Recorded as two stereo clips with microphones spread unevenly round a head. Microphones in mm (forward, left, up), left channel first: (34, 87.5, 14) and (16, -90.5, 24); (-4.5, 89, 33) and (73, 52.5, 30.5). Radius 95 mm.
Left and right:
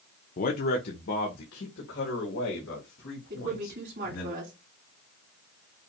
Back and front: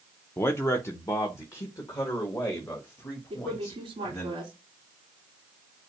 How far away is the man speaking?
About 0.6 m.